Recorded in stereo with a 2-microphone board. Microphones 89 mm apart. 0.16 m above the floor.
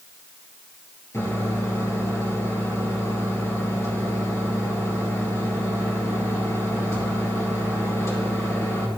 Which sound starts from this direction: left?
A microwave, at 1.1 s.